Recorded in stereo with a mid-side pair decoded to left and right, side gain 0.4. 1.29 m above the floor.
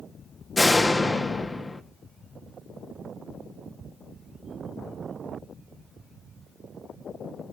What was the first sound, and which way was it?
A door slam, 25° left.